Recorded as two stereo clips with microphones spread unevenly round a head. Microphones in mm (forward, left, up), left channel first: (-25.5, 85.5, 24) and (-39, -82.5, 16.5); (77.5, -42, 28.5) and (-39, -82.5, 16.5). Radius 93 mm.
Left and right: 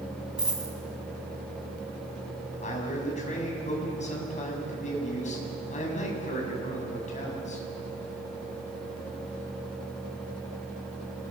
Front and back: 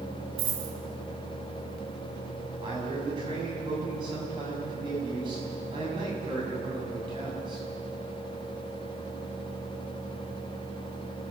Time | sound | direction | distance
0.4 | a dropped coin | straight behind | 4.5 m
2.6 | a man speaking | 130° left | 7.5 m